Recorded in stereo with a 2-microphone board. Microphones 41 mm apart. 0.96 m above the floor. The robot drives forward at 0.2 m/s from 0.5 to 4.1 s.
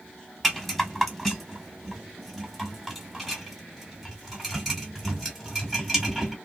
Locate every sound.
0.4 s a rattle: 5° left (ahead or behind), 1.0 m